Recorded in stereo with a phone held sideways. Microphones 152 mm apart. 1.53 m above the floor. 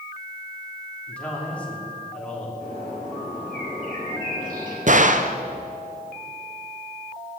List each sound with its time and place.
1.1 s a man speaking: 10° left (ahead or behind), 3 m
2.6 s a bird: 65° right (ahead or behind), 4 m
4.9 s a gunshot: 55° right (ahead or behind), 0.6 m